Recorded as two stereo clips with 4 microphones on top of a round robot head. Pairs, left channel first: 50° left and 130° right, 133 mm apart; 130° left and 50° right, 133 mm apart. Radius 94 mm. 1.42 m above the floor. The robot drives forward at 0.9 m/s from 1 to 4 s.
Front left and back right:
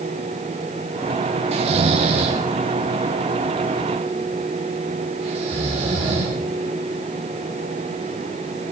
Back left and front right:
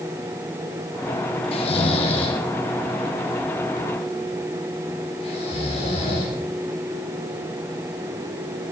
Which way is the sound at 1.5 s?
Straight behind.